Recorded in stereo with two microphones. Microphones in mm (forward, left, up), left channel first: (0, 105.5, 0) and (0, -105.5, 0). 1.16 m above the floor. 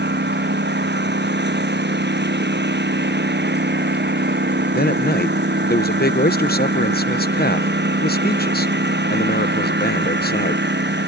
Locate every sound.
0.0 s a lawn mower: 55° right (ahead or behind)
4.7 s a man speaking: 50° left (ahead or behind)